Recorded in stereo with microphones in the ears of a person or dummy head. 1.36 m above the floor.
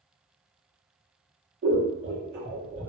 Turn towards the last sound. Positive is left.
turn(degrees=-45)  # may be behind; listen again after turning